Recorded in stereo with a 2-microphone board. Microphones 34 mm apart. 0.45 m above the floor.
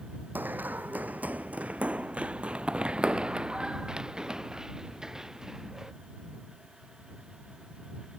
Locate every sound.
0.3 s running footsteps: 65° right (ahead or behind); by 5.9 s 10° right (ahead or behind)